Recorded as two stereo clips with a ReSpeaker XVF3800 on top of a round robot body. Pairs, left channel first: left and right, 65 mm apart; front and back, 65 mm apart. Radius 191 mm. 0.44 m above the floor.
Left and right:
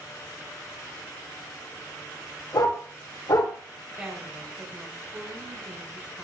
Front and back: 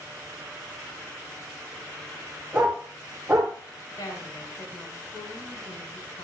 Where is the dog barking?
105° left, 10 m.